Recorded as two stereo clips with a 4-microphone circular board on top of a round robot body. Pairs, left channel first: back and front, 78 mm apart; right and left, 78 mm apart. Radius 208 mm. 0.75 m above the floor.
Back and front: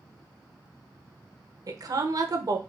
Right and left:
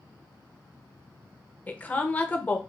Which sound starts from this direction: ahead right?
A woman speaking, at 1.7 s.